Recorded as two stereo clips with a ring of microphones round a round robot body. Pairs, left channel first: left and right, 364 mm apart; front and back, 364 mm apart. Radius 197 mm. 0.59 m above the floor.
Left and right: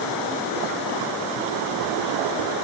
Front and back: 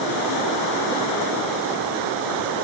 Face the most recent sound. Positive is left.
No sound to turn to.